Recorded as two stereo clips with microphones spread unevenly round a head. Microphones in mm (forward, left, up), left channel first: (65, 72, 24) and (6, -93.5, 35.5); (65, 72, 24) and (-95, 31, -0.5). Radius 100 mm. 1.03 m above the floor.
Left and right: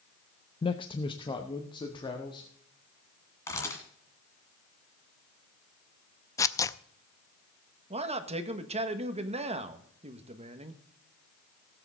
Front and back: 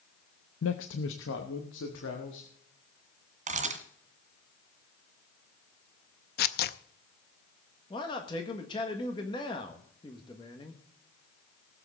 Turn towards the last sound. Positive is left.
turn(degrees=-55)